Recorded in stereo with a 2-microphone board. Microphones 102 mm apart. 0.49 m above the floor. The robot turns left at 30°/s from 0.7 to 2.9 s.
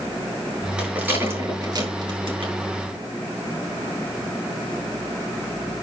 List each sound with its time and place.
0.8 s a rattle: 10° right (ahead or behind), 6.5 m; by 2.5 s 60° right (ahead or behind), 6.5 m